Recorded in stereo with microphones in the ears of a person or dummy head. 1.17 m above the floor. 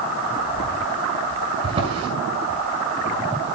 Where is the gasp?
I don't hear a gasp.